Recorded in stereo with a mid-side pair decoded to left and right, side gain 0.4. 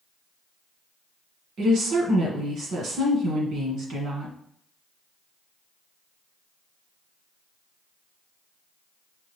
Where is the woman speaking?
70° right, 1.4 m.